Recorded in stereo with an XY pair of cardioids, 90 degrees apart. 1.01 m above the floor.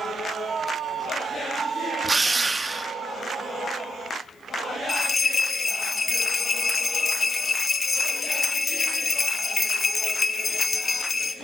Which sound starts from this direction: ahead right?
A drill, at 2.0 s.